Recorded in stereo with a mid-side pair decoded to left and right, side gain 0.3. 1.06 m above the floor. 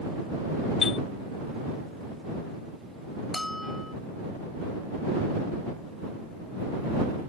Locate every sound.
0.8 s a chime: 65° left
3.3 s a bell: 20° left